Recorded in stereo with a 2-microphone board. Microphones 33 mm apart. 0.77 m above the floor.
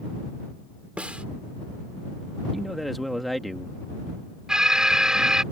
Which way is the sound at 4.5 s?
20° right (ahead or behind).